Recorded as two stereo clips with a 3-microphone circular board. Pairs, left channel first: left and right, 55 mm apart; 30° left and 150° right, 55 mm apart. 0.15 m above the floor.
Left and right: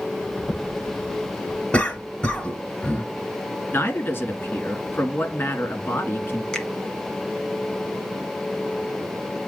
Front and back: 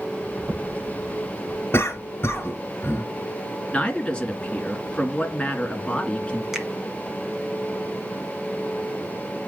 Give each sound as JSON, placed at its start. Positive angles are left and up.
{"t": 0.4, "sound": "footsteps", "azimuth_deg": 160, "distance_m": 7.0}
{"t": 1.7, "sound": "a cough", "azimuth_deg": 35, "distance_m": 2.0}
{"t": 3.7, "sound": "a man speaking", "azimuth_deg": 90, "distance_m": 1.8}
{"t": 6.5, "sound": "a finger snap", "azimuth_deg": 135, "distance_m": 1.5}